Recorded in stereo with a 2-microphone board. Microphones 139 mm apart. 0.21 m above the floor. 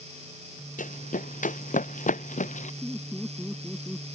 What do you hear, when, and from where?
0.8 s running footsteps: 85° left; by 2.7 s 70° left (ahead or behind)
2.8 s laughter: 10° right (ahead or behind)